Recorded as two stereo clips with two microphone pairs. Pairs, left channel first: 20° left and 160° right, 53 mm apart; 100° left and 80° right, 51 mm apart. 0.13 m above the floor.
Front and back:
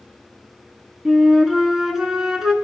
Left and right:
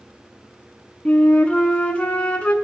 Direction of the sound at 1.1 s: 135° left.